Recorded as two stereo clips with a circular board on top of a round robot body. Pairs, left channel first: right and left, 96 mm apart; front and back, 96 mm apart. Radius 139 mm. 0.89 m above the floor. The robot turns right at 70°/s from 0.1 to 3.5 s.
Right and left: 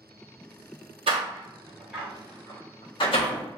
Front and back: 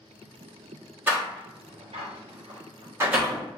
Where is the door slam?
110° left, 1.2 m; by 3.5 s 85° right, 1.2 m.